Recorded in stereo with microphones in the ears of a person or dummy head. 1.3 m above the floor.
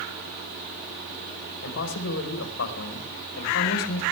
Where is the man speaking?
85° left, 4.5 m.